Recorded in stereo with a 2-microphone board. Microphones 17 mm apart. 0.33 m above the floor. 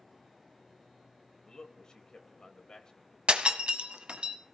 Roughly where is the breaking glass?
Right.